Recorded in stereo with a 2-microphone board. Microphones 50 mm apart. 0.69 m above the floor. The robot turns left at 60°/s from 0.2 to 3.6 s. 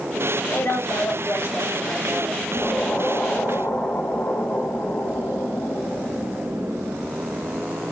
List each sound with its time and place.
0.5 s a woman speaking: 125° left, 1.4 m; by 2.4 s 10° left, 1.4 m
2.5 s an explosion: 170° left, 2.5 m; by 7.6 s 110° left, 2.5 m